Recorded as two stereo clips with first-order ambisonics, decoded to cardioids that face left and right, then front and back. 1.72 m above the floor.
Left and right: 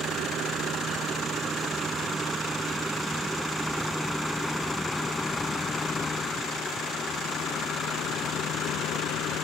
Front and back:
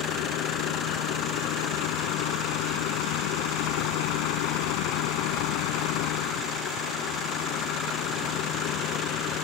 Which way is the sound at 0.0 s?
30° right.